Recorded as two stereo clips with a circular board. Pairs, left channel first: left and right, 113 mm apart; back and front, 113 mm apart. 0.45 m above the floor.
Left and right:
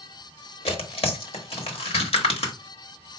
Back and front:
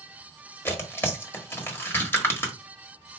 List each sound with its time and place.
0.7 s tearing paper: 110° left, 1.1 m